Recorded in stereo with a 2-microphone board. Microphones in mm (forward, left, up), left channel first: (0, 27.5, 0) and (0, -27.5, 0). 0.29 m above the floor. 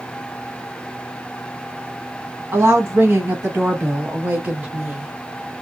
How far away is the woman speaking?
About 1.8 m.